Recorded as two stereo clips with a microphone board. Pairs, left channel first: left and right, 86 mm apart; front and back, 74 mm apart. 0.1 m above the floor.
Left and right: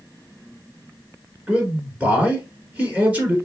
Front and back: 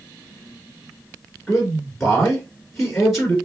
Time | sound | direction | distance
1.5 | a man speaking | 75° right | 1.6 m